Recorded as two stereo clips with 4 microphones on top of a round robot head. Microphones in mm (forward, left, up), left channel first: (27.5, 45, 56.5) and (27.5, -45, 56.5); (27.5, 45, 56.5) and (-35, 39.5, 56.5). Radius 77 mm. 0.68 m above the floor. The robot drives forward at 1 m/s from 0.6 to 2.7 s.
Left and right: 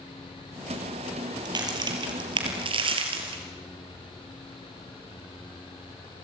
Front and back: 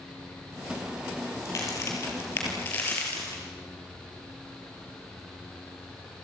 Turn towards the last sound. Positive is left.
turn(degrees=-65)